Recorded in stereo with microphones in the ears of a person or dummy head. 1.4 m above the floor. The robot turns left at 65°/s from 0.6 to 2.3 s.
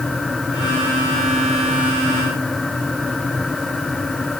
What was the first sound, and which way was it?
Only background noise.